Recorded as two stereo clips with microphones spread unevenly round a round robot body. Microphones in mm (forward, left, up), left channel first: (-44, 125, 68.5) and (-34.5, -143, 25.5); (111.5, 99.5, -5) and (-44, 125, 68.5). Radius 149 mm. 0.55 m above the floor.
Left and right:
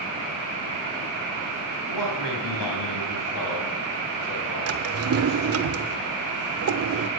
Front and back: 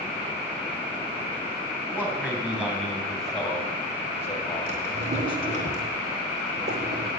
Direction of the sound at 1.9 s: 90° left.